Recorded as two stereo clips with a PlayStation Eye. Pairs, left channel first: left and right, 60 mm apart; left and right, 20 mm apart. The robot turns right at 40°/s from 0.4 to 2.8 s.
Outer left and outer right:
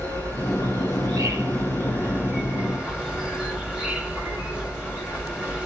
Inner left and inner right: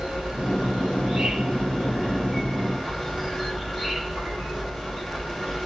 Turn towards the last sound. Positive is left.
turn(degrees=-15)